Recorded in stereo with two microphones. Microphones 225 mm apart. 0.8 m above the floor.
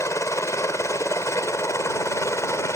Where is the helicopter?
10° left (ahead or behind).